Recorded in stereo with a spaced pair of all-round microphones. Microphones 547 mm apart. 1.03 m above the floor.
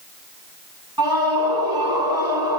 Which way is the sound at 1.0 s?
40° right (ahead or behind).